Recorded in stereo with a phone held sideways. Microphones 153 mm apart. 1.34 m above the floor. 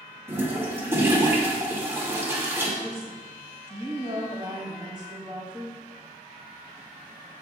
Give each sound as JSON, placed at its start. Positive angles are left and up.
{"t": 0.3, "sound": "a toilet flushing", "side_deg": -15, "distance_m": 2.0}
{"t": 2.8, "sound": "a woman speaking", "side_deg": -30, "distance_m": 3.5}